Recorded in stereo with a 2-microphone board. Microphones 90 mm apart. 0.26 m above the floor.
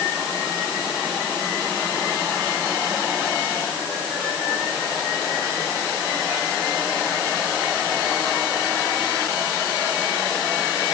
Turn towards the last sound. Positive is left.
No sound to turn to.